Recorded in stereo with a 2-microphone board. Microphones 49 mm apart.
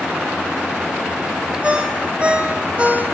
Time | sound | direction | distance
1.6 | a ringtone | 25° right (ahead or behind) | 3 m